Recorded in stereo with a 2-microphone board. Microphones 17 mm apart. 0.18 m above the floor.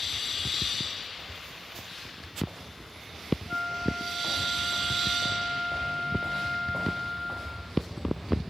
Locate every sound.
3.5 s a flute: 80° left, 7 m